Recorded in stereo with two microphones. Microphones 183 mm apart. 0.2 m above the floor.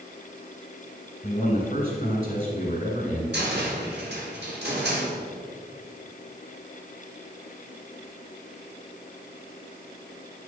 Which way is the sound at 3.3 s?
70° right (ahead or behind).